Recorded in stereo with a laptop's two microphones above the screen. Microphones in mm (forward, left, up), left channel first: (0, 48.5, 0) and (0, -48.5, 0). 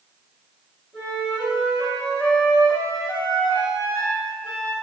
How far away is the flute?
About 1.7 m.